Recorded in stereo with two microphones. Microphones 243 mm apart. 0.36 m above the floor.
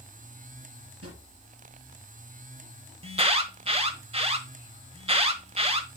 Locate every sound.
1.0 s a drawer: 80° right, 4 m
3.0 s an alarm: 25° right (ahead or behind), 1.1 m